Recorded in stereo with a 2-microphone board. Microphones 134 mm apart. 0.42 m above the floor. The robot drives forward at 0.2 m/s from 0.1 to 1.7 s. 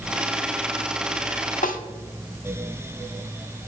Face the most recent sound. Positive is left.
turn(degrees=85)